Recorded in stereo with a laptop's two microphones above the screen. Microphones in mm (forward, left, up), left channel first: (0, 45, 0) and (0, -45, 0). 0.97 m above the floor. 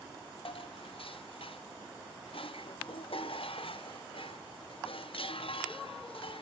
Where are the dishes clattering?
75° left (ahead or behind), 0.9 m.